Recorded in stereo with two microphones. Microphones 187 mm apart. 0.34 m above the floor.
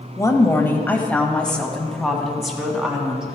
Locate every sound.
0.2 s a woman speaking: 20° left (ahead or behind), 1.2 m; by 3.4 s 5° right (ahead or behind), 2.5 m